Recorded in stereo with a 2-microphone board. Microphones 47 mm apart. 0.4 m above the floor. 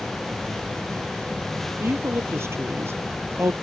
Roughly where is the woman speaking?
Right.